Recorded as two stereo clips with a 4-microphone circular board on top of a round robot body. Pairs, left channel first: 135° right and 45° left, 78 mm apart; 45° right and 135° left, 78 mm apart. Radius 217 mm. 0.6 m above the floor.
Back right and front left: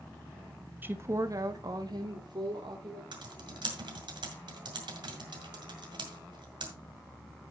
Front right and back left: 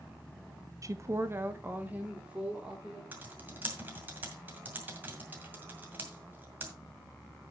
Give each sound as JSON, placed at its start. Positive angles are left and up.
{"t": 0.8, "sound": "a woman speaking", "azimuth_deg": 105, "distance_m": 1.4}
{"t": 3.1, "sound": "typing on a keyboard", "azimuth_deg": 70, "distance_m": 2.0}